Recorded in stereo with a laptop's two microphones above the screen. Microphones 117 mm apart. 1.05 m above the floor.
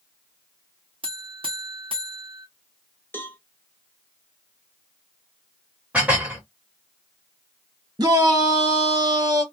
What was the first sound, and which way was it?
A buzzer, 45° right (ahead or behind).